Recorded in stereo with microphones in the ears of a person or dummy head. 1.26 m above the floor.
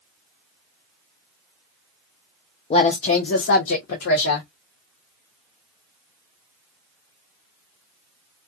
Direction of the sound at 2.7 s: 30° left (ahead or behind).